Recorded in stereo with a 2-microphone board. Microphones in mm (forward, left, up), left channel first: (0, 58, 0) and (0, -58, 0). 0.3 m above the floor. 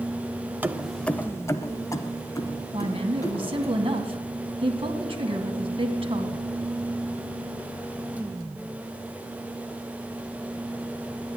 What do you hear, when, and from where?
0.6 s keys jangling: 15° right (ahead or behind), 0.6 m; by 3.7 s 35° left (ahead or behind), 3.5 m
2.7 s a woman speaking: 55° right (ahead or behind), 2 m